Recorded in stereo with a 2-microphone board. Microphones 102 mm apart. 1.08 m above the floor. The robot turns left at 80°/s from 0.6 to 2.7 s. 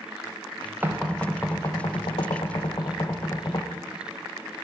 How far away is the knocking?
About 0.7 m.